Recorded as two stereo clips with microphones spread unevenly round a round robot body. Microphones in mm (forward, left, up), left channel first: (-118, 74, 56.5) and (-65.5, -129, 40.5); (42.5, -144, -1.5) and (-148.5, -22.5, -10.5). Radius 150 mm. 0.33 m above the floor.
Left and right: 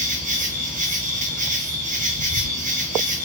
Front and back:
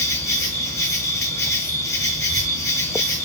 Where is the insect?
110° right, 0.9 m.